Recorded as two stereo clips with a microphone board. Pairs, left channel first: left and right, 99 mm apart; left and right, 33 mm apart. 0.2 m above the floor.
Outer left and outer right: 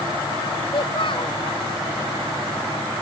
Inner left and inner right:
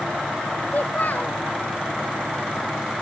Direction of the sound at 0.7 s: 55° left (ahead or behind).